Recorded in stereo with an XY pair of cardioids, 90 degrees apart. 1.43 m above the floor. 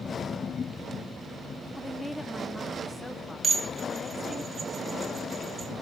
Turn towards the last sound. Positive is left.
turn(degrees=-40)